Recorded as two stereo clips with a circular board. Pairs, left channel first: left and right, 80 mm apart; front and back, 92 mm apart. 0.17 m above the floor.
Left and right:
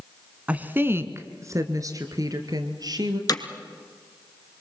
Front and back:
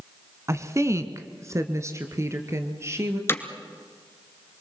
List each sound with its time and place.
0.5 s a woman speaking: 150° right, 1.3 m; by 3.2 s 120° right, 3.5 m
3.3 s hammering: 60° left, 1.7 m